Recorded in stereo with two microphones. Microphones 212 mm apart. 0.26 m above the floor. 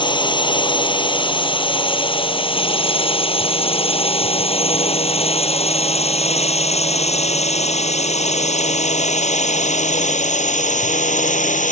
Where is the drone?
20° left (ahead or behind); by 11.7 s 35° left (ahead or behind).